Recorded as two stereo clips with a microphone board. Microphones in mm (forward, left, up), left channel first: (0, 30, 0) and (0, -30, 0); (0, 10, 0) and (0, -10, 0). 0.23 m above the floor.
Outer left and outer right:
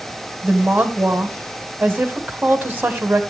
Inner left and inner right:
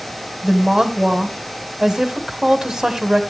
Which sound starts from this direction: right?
A woman speaking, at 0.4 s.